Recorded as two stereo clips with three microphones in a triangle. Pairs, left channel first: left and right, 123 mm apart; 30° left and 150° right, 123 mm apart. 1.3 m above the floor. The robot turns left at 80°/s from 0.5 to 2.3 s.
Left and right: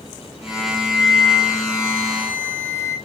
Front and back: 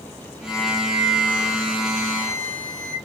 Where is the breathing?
I don't hear breathing.